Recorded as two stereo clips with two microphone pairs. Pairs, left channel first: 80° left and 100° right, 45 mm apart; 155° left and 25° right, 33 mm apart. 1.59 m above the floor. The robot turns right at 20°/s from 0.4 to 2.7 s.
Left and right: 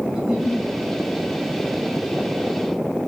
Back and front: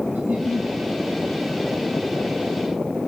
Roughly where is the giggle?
Ahead.